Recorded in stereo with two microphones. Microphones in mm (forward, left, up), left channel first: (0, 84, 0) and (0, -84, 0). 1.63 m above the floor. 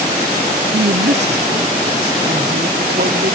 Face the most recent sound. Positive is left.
turn(degrees=-70)  # may be behind; listen again after turning